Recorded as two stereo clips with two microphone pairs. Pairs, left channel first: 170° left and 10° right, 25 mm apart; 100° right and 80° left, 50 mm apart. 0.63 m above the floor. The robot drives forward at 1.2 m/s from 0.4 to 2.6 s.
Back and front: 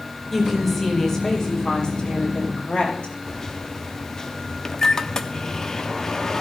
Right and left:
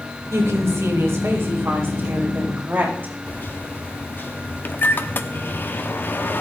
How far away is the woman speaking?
About 3 m.